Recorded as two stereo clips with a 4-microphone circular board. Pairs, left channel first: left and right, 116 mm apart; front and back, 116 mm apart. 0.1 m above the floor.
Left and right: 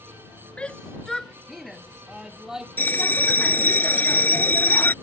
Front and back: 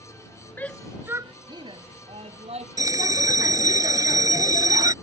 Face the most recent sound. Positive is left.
turn(degrees=150)